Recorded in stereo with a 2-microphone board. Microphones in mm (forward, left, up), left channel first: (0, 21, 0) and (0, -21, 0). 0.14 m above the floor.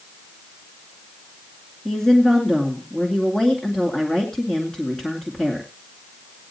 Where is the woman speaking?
10° left (ahead or behind), 2 m.